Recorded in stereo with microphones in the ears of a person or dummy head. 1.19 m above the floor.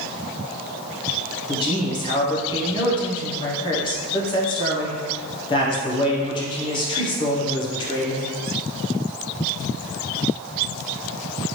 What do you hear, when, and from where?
1.5 s a man speaking: 25° left (ahead or behind), 0.7 m